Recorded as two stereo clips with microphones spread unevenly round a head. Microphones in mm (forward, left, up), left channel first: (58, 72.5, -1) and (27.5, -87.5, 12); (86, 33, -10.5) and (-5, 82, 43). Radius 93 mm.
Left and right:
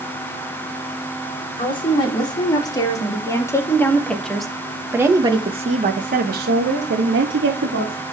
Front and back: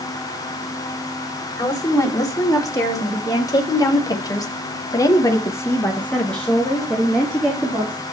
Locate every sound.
1.6 s a woman speaking: 20° left, 3.5 m; by 8.0 s 120° right, 2.5 m